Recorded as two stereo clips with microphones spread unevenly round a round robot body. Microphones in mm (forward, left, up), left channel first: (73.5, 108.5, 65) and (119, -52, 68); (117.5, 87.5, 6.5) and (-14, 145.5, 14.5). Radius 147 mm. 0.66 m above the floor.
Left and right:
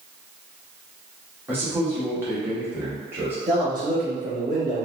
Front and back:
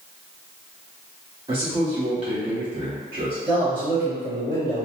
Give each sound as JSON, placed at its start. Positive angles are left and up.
{"t": 1.5, "sound": "a man speaking", "azimuth_deg": -150, "distance_m": 0.8}
{"t": 3.5, "sound": "a man speaking", "azimuth_deg": -130, "distance_m": 1.2}